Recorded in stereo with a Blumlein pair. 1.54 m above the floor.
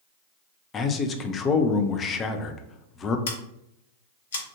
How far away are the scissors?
About 0.9 m.